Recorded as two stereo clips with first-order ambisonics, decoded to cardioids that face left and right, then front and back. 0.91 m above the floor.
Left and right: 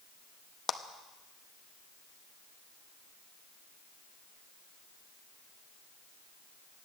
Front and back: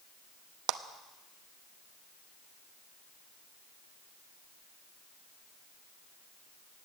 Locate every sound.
0.7 s a clap: 165° left, 0.8 m